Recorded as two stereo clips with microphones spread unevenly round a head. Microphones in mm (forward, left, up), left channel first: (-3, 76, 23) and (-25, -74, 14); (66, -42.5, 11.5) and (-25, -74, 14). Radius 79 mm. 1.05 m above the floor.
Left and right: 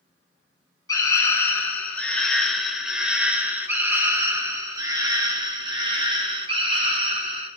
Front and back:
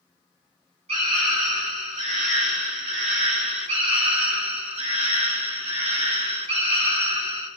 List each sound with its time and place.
0.9 s a scream: 150° left, 5 m; by 7.5 s 145° right, 8.5 m